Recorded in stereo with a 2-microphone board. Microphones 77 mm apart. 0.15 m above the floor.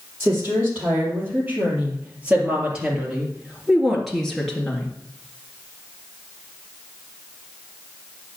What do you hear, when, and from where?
0.2 s a woman speaking: 30° right (ahead or behind), 5.5 m; by 4.9 s 15° left (ahead or behind), 2.5 m